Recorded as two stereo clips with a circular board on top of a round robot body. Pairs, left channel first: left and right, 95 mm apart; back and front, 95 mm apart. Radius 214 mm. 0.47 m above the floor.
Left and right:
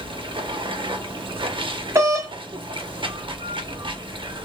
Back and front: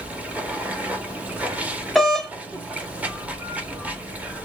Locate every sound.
0.0 s running water: 75° right, 0.9 m
1.9 s a doorbell: 95° right, 1.5 m